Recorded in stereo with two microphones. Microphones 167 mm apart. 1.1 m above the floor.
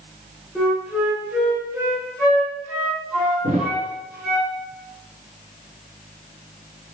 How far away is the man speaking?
No man speaking in this recording.